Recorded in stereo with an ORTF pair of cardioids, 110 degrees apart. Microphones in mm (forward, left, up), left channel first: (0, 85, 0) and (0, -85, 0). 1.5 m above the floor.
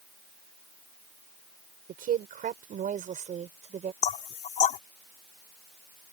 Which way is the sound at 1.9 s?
60° right.